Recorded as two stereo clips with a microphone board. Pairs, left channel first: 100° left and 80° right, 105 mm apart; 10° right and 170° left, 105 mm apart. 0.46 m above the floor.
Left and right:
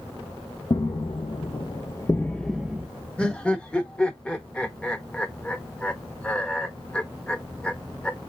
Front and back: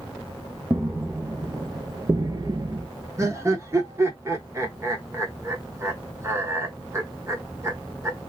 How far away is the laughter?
About 0.8 m.